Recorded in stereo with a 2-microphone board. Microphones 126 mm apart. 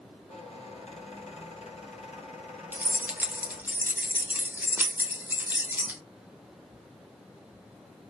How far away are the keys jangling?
About 0.6 m.